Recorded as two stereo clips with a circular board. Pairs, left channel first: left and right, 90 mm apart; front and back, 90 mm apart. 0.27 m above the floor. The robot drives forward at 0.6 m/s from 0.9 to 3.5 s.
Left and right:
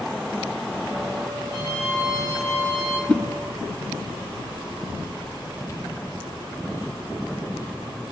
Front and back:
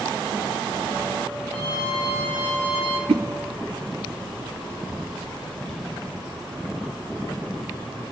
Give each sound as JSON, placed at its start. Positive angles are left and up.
{"t": 1.5, "sound": "a violin", "azimuth_deg": 150, "distance_m": 9.0}
{"t": 3.1, "sound": "a whoosh", "azimuth_deg": 170, "distance_m": 0.8}